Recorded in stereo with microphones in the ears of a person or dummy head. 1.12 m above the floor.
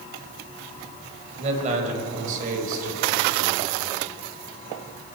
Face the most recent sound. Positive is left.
turn(degrees=-65)  # may be behind; listen again after turning